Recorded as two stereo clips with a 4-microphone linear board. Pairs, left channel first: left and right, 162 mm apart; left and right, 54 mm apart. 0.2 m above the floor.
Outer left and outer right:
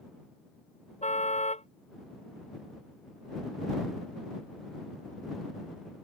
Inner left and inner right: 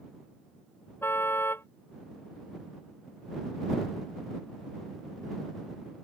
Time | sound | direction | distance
1.0 | a car horn | 45° left (ahead or behind) | ?